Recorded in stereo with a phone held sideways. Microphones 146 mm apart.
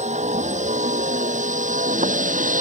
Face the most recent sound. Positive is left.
turn(degrees=-70)  # may be behind; listen again after turning